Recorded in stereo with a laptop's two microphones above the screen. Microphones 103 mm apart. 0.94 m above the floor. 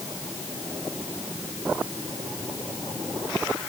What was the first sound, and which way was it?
Only background noise.